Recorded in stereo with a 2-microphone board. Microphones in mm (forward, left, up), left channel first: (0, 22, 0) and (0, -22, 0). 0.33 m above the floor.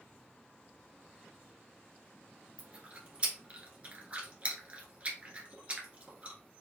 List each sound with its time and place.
2.6 s chewing: 30° right (ahead or behind), 1.7 m